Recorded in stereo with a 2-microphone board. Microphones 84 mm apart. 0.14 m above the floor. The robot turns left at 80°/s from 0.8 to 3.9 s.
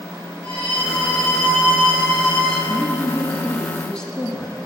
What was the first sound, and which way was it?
A violin, 95° left.